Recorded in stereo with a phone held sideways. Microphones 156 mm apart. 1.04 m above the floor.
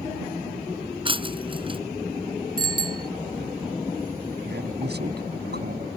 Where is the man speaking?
80° right.